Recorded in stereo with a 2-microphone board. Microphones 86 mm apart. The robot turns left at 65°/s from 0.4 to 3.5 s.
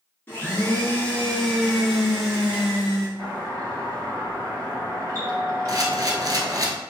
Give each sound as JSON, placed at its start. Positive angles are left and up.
{"t": 0.3, "sound": "a blender", "side_deg": 25, "distance_m": 1.3}
{"t": 3.2, "sound": "a doorbell", "side_deg": -30, "distance_m": 1.9}
{"t": 5.7, "sound": "a camera shutter", "side_deg": -45, "distance_m": 0.6}